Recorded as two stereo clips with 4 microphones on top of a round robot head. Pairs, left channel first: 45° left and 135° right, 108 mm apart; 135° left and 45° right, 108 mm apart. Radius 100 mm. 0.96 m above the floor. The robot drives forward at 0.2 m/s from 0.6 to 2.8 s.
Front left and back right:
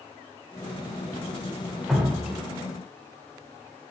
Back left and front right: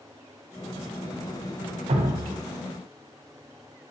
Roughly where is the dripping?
Ahead right.